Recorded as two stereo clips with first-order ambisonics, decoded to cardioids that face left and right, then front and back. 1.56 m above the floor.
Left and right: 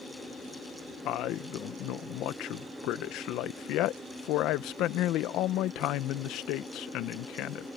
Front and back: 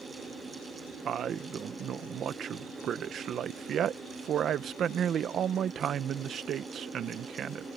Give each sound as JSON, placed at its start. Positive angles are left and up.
{"t": 1.1, "sound": "a man speaking", "azimuth_deg": 125}